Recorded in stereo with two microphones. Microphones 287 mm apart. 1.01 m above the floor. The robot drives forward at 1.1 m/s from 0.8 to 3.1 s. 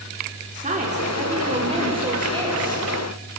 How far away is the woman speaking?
About 3 m.